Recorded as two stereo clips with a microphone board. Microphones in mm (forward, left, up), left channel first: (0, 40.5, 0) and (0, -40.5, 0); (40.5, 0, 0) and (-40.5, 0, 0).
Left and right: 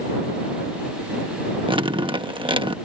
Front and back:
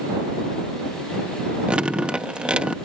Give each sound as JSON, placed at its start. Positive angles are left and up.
{"t": 1.7, "sound": "dripping", "azimuth_deg": -100}